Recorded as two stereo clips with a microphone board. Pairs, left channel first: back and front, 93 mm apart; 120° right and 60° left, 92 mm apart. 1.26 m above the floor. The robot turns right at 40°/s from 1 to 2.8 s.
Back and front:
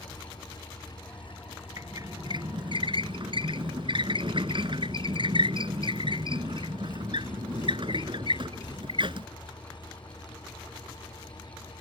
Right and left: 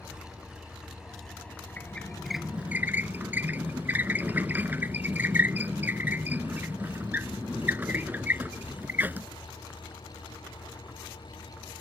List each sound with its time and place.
0.0 s an engine running: 140° left; by 11.8 s 145° right
1.8 s a squeak: 50° right; by 9.3 s 10° right